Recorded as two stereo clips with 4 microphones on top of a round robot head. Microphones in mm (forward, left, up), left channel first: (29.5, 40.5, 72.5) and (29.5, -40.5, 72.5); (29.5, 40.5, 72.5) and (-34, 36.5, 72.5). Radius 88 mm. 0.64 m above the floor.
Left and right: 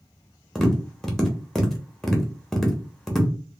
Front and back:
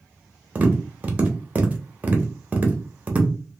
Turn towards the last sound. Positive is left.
turn(degrees=170)